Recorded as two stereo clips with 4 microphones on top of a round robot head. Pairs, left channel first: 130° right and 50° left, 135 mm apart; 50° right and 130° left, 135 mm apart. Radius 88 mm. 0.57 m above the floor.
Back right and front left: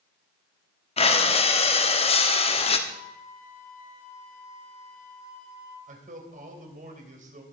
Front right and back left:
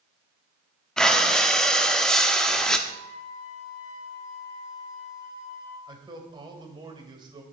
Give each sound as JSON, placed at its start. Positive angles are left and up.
{"t": 1.0, "sound": "breathing", "azimuth_deg": -130, "distance_m": 1.7}
{"t": 2.9, "sound": "a flute", "azimuth_deg": -115, "distance_m": 5.5}
{"t": 5.9, "sound": "a man speaking", "azimuth_deg": 75, "distance_m": 3.0}